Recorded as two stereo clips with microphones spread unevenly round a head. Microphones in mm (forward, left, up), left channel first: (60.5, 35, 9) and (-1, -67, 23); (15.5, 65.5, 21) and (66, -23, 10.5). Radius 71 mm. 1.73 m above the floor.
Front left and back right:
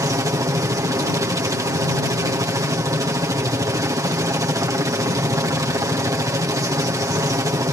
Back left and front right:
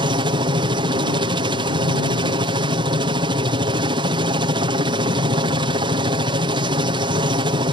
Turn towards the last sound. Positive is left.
turn(degrees=-60)